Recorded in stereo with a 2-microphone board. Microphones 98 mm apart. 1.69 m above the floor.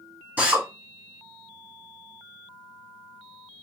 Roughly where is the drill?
Centre.